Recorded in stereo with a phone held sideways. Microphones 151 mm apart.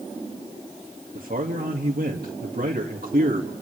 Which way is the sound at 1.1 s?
85° right.